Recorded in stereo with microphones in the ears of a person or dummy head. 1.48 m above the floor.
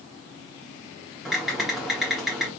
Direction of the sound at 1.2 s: 5° left (ahead or behind).